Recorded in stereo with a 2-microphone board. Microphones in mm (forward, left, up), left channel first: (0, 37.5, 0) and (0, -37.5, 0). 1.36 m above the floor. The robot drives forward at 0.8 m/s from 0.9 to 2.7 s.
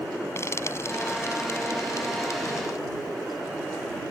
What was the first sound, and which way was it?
Frying, 40° left (ahead or behind).